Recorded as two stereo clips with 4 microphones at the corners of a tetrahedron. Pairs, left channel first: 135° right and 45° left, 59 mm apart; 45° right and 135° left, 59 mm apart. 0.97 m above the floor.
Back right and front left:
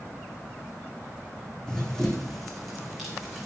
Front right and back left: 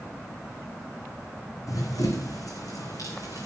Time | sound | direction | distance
1.7 | running footsteps | 55° right | 3 m